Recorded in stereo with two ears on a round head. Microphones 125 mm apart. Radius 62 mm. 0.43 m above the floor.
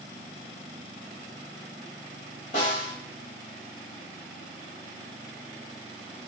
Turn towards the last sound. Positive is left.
turn(degrees=55)  # may be behind; listen again after turning